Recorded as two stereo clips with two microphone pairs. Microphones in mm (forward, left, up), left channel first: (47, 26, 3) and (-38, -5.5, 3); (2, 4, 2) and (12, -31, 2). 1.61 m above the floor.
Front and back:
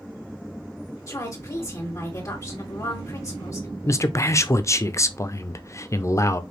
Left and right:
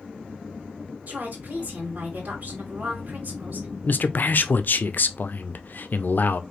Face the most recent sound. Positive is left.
turn(degrees=75)